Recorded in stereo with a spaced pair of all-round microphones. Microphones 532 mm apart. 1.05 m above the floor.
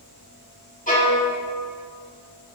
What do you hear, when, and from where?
0.9 s a violin: 15° left (ahead or behind), 2 m